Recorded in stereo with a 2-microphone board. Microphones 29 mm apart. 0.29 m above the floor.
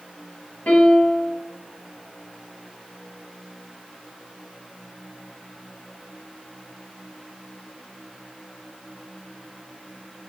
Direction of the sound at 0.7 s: 55° left (ahead or behind).